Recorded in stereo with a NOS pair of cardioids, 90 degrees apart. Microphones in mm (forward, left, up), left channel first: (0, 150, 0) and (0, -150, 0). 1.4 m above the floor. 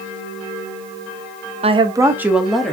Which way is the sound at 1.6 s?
20° right.